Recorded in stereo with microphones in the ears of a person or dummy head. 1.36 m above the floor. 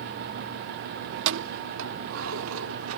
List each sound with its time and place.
1.1 s keys jangling: 65° right (ahead or behind); by 3.0 s 85° right